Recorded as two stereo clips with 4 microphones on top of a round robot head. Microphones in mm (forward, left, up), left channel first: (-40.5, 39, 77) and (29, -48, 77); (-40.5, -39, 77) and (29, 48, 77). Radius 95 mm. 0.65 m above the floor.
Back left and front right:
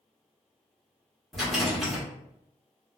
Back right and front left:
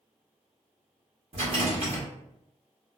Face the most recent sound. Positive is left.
turn(degrees=40)